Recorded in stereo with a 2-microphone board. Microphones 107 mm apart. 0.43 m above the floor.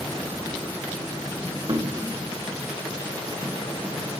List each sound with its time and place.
1.7 s knocking: 45° right (ahead or behind), 1.0 m